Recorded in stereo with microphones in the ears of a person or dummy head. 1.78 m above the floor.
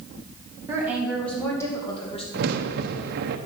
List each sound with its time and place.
0.7 s a woman speaking: 15° right (ahead or behind), 2 m; by 2.2 s 35° left (ahead or behind), 2.5 m
2.3 s a crack: 60° right (ahead or behind), 0.9 m